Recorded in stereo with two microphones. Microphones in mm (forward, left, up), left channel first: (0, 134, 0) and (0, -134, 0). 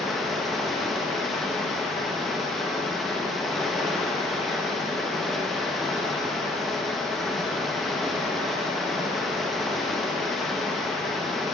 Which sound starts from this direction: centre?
Running water, at 0.0 s.